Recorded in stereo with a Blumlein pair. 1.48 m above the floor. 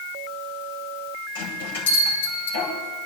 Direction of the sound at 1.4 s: 60° left.